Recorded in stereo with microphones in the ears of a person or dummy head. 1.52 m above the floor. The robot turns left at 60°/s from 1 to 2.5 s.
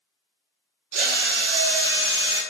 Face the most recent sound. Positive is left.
turn(degrees=-140)